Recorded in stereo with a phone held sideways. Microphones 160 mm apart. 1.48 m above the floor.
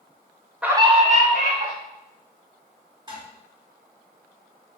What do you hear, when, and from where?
0.6 s a scream: 5° right (ahead or behind), 0.5 m; by 1.7 s 65° right (ahead or behind), 1.4 m
3.1 s dishes clattering: 30° right (ahead or behind), 1.6 m